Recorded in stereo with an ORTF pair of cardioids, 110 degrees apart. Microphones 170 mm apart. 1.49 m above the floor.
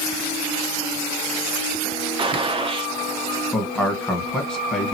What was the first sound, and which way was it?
A gunshot, 30° right.